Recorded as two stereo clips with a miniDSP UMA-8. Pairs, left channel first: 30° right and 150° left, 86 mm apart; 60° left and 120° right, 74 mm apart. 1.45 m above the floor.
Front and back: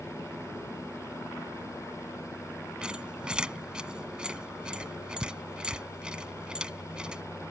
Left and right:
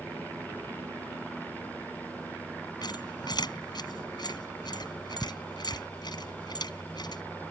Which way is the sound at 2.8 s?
70° left.